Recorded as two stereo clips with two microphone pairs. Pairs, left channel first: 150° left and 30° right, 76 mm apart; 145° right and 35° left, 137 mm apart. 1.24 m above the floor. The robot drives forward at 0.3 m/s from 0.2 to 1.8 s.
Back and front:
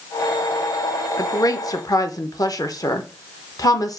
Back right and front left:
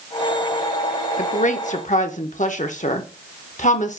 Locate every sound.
1.2 s a woman speaking: 170° right, 0.6 m